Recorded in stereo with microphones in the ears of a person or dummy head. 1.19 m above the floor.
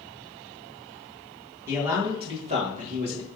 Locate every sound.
1.7 s a man speaking: 20° right (ahead or behind), 1.6 m; by 3.3 s 60° right (ahead or behind), 1.3 m